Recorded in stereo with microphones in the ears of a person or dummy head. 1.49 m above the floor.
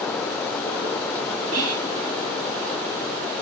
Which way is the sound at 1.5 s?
80° right.